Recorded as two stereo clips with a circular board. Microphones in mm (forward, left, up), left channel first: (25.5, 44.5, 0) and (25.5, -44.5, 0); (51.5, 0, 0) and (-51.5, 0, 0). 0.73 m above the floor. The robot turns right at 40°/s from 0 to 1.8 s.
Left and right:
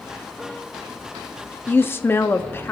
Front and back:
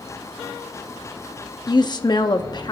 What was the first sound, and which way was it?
A woman speaking, 25° left.